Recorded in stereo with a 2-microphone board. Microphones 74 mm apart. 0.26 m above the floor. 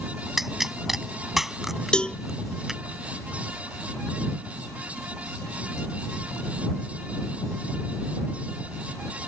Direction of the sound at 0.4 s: 5° right (ahead or behind).